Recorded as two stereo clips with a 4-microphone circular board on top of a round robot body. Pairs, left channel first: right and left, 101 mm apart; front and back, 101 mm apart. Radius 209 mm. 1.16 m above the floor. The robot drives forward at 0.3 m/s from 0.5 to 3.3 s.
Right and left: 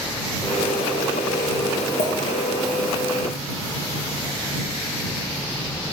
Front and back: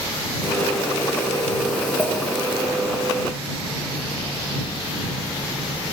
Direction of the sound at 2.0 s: 80° right.